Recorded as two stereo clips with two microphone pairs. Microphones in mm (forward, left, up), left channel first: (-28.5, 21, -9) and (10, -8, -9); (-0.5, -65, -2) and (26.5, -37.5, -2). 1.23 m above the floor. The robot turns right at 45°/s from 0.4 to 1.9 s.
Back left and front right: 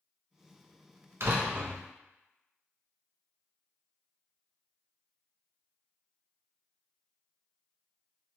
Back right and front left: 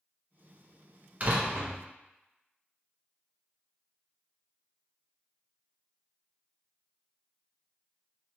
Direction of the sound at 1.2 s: 10° right.